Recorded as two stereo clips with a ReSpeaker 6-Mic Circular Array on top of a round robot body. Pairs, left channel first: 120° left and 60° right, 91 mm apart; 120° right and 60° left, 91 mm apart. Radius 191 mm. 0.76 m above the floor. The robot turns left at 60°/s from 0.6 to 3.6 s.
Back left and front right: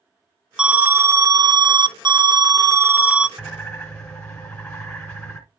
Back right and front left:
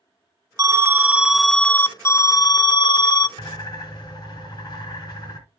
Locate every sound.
0.6 s an alarm: 20° left, 0.7 m; by 3.3 s 145° right, 0.7 m
3.4 s a bird: 160° right, 1.3 m; by 5.4 s 170° right, 1.3 m